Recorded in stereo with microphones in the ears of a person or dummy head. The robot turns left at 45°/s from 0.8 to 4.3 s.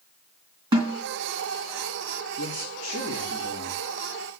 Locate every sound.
0.7 s a snare drum: 20° right (ahead or behind), 3 m; by 1.0 s 10° right (ahead or behind), 3 m
2.4 s a man speaking: 100° left, 3.5 m; by 3.8 s 35° left, 3.5 m